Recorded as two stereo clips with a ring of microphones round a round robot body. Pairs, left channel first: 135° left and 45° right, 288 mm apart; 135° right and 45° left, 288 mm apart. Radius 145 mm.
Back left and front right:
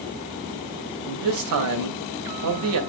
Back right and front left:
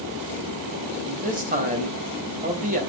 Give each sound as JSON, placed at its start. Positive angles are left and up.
{"t": 1.0, "sound": "a man speaking", "azimuth_deg": -15, "distance_m": 2.5}